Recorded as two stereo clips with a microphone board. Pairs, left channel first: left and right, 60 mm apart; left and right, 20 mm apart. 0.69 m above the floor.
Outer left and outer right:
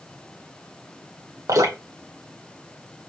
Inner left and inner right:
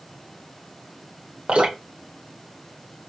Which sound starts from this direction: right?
Dripping, at 1.5 s.